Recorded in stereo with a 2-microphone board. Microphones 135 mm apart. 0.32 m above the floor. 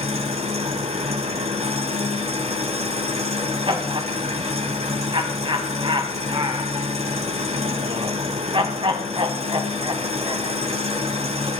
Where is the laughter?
40° right (ahead or behind), 2 m.